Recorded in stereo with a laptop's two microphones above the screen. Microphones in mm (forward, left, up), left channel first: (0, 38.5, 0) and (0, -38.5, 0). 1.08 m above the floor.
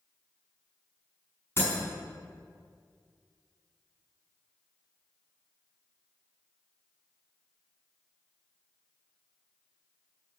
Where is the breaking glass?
30° left (ahead or behind), 6 m.